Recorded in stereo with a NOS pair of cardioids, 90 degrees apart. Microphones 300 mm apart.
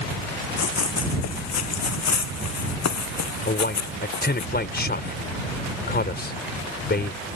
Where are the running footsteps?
60° left; by 4.5 s 75° left.